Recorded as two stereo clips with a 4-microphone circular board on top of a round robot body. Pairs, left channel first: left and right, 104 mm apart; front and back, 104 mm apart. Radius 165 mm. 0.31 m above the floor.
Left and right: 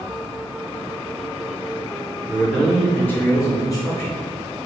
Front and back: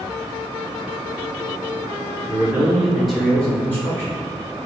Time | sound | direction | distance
2.3 | a man speaking | 165° right | 1.6 m